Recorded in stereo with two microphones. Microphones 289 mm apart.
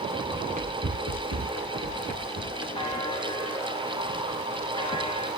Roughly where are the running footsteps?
Centre.